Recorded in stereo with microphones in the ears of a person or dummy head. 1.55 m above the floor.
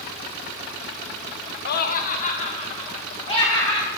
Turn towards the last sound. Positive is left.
turn(degrees=30)  # may be behind; listen again after turning